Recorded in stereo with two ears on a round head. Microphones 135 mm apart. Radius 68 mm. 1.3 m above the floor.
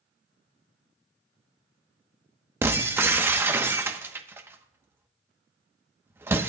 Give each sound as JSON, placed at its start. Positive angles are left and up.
{"t": 2.6, "sound": "breaking glass", "side_deg": -15, "distance_m": 0.9}